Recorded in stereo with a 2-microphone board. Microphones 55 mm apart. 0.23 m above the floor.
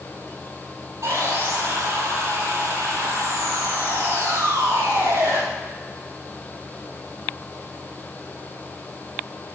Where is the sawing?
70° right (ahead or behind), 2.5 m.